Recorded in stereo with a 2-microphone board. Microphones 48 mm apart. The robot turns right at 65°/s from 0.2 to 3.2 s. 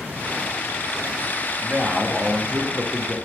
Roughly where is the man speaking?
Right.